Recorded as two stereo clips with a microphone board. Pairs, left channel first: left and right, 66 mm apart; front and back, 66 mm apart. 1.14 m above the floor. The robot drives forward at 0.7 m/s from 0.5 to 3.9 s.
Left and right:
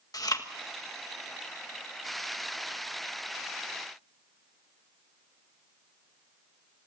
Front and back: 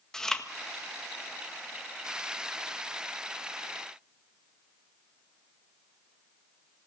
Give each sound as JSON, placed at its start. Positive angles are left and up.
{"t": 0.1, "sound": "chewing", "azimuth_deg": 80, "distance_m": 1.6}